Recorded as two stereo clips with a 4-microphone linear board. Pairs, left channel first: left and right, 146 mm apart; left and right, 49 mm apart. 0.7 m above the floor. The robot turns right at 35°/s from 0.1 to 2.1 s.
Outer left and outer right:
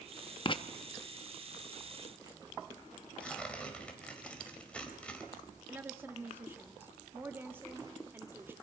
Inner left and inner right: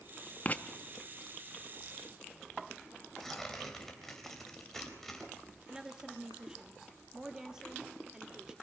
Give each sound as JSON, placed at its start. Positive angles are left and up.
{"t": 0.5, "sound": "writing", "side_deg": 35, "distance_m": 0.8}
{"t": 3.2, "sound": "tearing paper", "side_deg": 10, "distance_m": 3.5}
{"t": 5.7, "sound": "a woman speaking", "side_deg": -15, "distance_m": 1.6}